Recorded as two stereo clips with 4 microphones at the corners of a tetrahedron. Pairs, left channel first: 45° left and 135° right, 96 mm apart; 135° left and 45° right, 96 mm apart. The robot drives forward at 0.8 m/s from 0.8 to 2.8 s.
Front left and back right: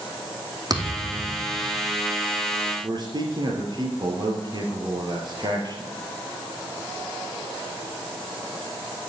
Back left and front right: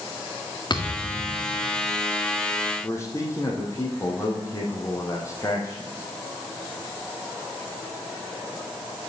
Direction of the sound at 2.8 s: 170° right.